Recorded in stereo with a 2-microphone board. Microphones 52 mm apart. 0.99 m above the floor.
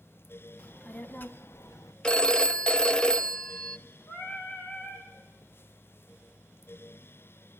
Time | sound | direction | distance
0.6 | a child speaking | 20° left (ahead or behind) | 1.4 m
2.0 | a phone ringing | 15° left (ahead or behind) | 0.6 m
4.1 | singing | 50° left (ahead or behind) | 4.5 m